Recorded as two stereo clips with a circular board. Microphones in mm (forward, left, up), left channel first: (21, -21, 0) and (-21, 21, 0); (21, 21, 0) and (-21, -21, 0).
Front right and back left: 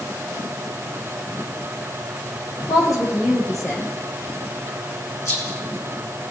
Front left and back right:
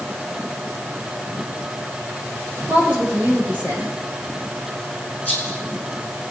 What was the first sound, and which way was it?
A woman speaking, 70° right.